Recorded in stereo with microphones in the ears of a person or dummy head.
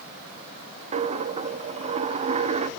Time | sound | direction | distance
0.9 | a dropped coin | 40° right (ahead or behind) | 1.0 m